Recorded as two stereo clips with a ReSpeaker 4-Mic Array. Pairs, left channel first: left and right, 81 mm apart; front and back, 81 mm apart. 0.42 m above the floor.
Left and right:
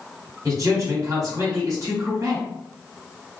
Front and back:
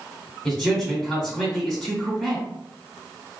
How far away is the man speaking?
About 1.4 m.